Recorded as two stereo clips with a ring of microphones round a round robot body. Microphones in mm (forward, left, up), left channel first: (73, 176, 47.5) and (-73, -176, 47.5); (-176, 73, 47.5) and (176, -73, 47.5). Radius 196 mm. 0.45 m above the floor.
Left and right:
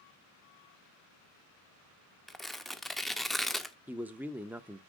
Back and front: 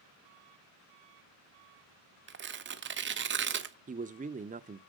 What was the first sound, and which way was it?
Tearing paper, 20° right.